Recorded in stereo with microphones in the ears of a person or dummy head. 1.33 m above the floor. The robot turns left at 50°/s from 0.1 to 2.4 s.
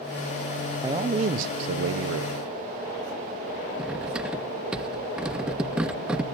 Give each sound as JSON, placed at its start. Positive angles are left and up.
{"t": 0.8, "sound": "a man speaking", "azimuth_deg": -15, "distance_m": 0.6}
{"t": 3.8, "sound": "cutlery clinking", "side_deg": -5, "distance_m": 0.9}